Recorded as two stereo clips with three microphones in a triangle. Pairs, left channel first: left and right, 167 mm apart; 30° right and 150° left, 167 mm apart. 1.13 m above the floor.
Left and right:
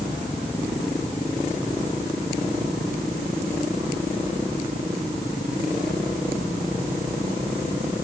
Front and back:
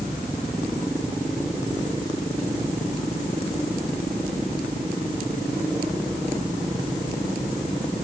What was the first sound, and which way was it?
Only background noise.